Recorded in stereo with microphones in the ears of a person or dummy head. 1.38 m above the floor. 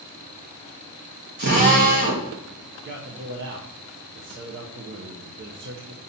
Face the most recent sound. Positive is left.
turn(degrees=-50)  # may be behind; listen again after turning